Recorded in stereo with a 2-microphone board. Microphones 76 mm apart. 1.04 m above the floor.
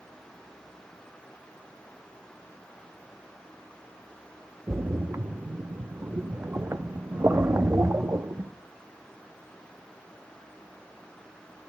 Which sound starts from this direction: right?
A splash, at 4.7 s.